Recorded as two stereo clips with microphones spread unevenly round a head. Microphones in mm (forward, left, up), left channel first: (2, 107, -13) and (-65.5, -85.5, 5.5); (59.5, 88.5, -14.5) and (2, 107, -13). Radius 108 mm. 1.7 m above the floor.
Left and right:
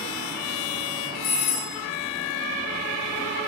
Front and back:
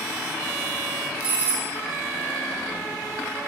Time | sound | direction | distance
1.2 | a doorbell | 90° left | 1.6 m